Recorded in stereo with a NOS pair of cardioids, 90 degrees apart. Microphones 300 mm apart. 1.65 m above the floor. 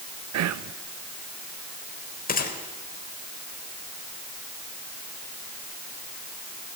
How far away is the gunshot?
About 4 m.